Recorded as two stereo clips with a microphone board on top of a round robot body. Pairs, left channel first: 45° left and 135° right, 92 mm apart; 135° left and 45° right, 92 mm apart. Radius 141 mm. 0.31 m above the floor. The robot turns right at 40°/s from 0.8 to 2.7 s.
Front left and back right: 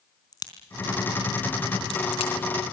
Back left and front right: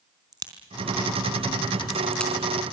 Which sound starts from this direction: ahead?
A crack, at 0.3 s.